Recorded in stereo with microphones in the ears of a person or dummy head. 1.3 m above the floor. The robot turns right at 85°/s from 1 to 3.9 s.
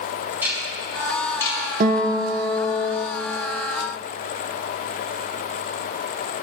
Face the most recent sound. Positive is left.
turn(degrees=130)